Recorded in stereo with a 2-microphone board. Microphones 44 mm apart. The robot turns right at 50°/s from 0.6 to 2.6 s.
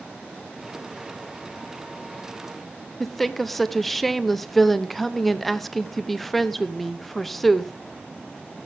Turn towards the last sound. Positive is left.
turn(degrees=5)  # may be behind; listen again after turning